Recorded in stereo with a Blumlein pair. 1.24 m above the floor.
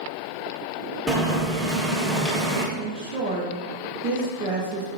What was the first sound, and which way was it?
Boiling, 5° right.